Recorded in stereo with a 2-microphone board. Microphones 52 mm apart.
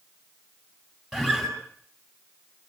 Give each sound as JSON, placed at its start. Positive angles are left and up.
{"t": 1.1, "sound": "a guitar", "side_deg": -5, "distance_m": 8.5}